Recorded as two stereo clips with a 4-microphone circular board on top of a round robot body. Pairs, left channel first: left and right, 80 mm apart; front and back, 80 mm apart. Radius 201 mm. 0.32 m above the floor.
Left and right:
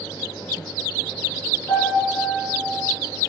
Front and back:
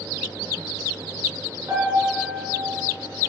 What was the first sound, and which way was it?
A piano, 130° left.